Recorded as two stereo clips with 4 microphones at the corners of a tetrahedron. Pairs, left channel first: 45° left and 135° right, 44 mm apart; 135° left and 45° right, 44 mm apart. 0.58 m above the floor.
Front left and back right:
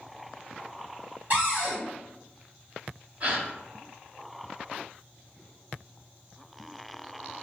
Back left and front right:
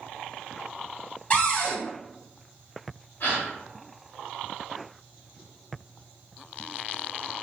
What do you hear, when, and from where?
1.3 s a cupboard door: 170° right, 1.7 m
3.2 s a gasp: 170° left, 1.4 m